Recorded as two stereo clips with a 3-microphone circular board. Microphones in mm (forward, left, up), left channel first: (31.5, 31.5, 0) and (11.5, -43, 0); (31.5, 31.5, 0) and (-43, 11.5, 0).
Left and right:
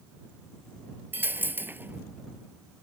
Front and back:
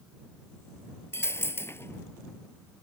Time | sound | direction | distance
1.1 | a dropped coin | 40° right | ?